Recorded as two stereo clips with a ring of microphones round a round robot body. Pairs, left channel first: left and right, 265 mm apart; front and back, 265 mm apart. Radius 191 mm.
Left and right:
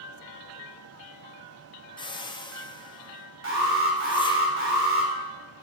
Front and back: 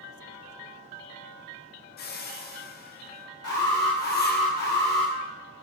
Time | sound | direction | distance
2.0 | a whoosh | 25° left | 0.7 m
3.4 | an alarm | 50° right | 2.0 m